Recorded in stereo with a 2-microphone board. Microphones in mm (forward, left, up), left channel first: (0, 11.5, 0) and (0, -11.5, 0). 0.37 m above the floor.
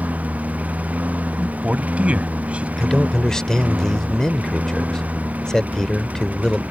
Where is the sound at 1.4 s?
60° right (ahead or behind).